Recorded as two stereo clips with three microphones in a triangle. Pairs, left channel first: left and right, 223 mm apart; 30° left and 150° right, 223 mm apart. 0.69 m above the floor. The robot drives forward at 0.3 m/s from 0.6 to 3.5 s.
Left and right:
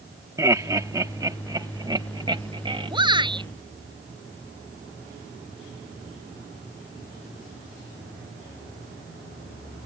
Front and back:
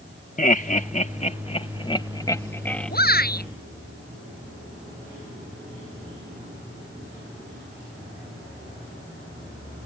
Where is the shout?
20° right.